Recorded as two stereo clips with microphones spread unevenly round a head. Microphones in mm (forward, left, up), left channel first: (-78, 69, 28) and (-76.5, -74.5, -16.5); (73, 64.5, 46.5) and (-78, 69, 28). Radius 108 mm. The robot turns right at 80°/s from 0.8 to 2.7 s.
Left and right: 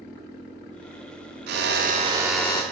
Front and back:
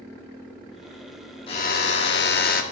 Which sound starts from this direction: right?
A drill, at 1.5 s.